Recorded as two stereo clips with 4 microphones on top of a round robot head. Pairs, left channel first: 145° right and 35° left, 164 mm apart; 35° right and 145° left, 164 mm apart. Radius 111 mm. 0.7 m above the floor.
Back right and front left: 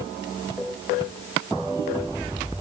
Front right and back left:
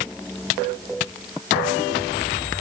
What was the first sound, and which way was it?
Only background noise.